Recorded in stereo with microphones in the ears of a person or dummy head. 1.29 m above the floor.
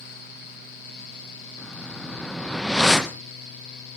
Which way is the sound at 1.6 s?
Centre (ahead or behind).